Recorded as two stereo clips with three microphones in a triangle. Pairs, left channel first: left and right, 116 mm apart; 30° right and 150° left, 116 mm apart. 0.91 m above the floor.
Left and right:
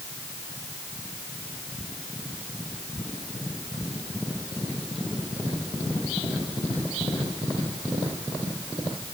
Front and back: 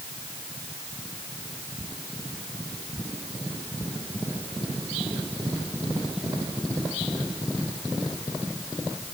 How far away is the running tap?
No running tap in this recording.